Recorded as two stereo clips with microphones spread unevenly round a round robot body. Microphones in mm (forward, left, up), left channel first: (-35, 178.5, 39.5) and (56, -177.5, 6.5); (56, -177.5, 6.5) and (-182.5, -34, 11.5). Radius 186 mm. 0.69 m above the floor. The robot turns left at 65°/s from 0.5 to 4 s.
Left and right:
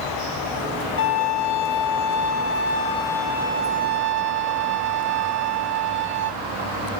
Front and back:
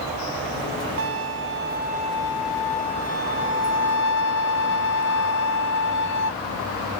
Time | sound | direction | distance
1.0 | a violin | 155° left | 0.6 m